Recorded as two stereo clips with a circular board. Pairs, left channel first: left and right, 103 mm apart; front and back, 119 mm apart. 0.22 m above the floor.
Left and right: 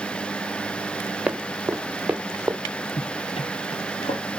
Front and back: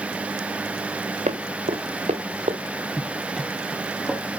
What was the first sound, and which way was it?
Running footsteps, 170° right.